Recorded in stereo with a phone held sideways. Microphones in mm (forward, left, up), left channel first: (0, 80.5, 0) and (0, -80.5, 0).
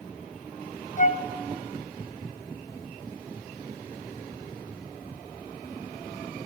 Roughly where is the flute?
Left.